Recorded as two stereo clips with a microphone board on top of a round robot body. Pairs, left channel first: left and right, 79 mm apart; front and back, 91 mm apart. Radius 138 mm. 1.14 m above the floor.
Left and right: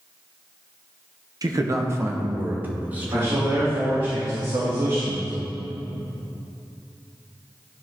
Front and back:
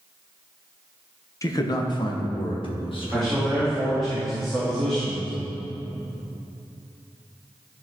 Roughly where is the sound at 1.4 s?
Ahead right.